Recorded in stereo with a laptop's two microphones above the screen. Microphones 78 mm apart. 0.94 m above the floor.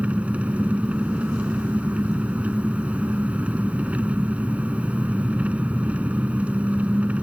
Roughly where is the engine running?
Centre.